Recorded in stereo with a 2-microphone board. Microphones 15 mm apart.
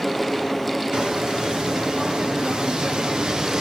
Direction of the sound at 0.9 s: 80° right.